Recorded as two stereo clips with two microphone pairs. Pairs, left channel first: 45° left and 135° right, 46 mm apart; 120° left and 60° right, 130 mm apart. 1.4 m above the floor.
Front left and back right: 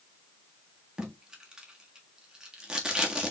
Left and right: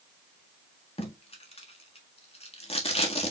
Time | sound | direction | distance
1.0 | tape being pulled | 155° left | 1.4 m